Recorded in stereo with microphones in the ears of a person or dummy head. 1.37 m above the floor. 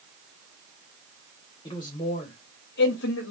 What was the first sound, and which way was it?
A man speaking, 10° left (ahead or behind).